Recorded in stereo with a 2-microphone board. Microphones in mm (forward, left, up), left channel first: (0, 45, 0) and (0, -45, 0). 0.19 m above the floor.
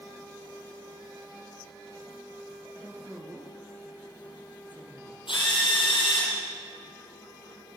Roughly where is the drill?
Left.